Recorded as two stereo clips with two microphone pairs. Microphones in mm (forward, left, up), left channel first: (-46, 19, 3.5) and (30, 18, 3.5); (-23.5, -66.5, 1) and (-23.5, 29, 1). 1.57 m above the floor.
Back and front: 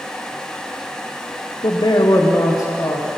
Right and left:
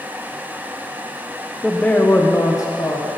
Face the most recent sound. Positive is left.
turn(degrees=-135)